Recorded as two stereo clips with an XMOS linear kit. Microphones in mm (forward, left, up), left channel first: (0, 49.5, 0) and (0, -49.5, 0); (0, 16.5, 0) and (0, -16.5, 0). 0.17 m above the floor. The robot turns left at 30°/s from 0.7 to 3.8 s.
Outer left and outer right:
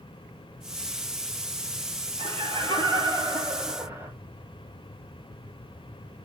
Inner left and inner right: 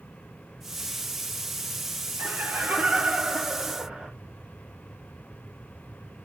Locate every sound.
2.2 s laughter: 105° right, 3 m; by 4.1 s 155° right, 3 m